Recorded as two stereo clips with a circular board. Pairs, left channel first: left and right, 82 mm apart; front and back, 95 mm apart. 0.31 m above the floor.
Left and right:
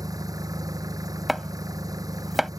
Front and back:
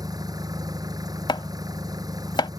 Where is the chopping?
5° right.